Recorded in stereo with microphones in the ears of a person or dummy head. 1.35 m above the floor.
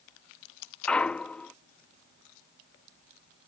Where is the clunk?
5° left (ahead or behind).